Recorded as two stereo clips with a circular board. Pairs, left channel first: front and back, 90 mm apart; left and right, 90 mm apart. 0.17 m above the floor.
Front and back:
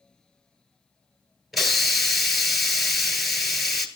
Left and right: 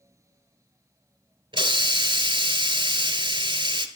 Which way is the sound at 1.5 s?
90° right.